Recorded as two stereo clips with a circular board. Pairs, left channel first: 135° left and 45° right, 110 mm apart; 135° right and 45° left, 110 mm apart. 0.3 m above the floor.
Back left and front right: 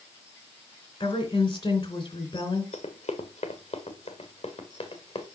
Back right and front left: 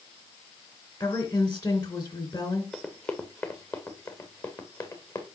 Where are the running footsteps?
145° left, 1.5 m; by 5.3 s 170° left, 2.5 m.